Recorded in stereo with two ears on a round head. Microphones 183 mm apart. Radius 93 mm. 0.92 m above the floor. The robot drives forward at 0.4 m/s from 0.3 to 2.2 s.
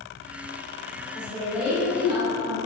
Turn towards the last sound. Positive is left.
turn(degrees=-45)  # may be behind; listen again after turning